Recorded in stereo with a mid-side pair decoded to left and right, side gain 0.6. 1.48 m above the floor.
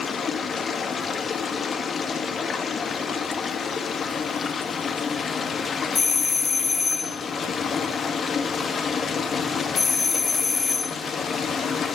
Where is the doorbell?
25° left, 0.8 m.